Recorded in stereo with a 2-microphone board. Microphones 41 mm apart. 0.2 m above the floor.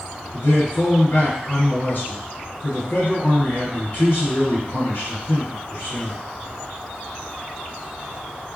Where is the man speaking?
55° left (ahead or behind), 1.8 m.